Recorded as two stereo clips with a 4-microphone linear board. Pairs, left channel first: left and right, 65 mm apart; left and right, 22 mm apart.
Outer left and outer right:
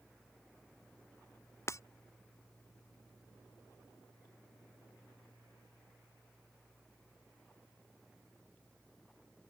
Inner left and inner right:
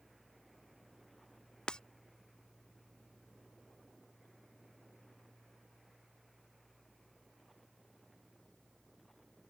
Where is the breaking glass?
45° left (ahead or behind).